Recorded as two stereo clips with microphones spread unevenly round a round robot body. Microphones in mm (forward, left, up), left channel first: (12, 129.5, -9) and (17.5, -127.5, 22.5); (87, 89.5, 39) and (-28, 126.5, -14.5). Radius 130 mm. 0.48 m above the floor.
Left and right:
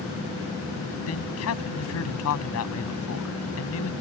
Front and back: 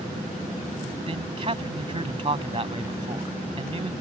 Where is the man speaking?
125° left.